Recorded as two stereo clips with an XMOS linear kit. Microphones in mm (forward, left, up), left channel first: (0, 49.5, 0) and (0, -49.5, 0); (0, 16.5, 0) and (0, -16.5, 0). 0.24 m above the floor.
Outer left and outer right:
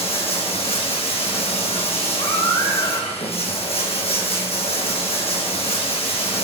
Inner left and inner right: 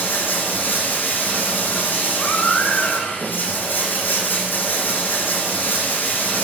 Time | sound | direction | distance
0.0 | running water | 85° left | 1.4 m
2.2 | a baby crying | 45° left (ahead or behind) | 1.9 m